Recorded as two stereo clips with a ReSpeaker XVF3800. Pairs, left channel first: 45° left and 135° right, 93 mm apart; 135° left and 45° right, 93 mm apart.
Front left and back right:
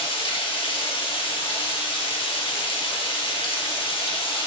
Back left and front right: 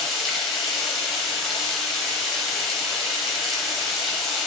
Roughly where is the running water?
Ahead left.